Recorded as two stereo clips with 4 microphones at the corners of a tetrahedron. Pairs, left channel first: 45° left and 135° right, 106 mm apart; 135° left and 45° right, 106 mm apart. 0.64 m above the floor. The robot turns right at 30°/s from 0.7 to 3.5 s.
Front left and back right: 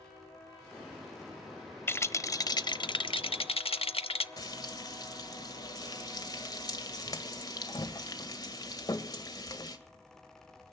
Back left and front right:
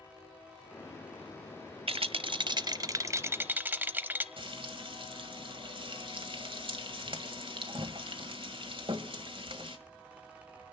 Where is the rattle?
20° right, 0.7 m; by 4.3 s 30° left, 0.7 m.